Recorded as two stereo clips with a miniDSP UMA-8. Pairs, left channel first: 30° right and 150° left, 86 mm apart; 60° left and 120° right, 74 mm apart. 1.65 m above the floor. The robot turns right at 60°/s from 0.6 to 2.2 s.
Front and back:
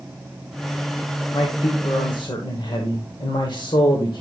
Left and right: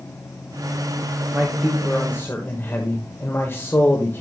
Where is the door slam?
No door slam in this recording.